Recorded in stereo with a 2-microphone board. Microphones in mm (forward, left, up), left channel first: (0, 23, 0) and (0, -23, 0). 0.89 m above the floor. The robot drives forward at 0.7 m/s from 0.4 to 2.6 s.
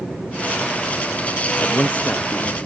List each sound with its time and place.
1.6 s a man speaking: 40° left (ahead or behind), 0.7 m; by 2.6 s 20° left (ahead or behind), 1.1 m